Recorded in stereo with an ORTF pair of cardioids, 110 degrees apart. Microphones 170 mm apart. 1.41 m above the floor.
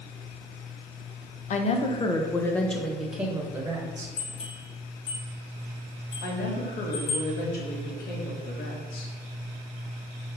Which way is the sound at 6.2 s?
65° left.